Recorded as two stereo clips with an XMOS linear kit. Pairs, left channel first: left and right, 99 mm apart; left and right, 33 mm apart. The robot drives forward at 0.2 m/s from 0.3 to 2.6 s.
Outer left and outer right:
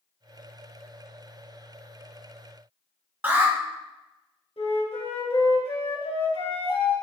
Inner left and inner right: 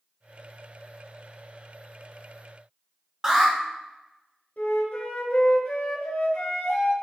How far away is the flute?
About 1.2 m.